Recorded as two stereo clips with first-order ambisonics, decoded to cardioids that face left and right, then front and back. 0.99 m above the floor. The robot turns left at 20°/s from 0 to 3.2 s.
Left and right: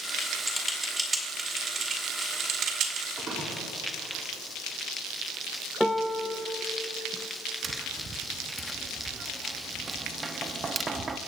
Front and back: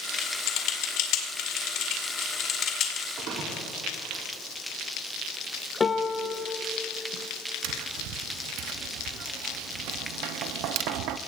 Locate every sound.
0.2 s typing on a keyboard: 5° left, 2.0 m; by 3.1 s 50° right, 2.0 m
3.2 s a splash: 150° right, 3 m
5.8 s a piano: straight ahead, 0.6 m
7.6 s tapping: 160° right, 0.6 m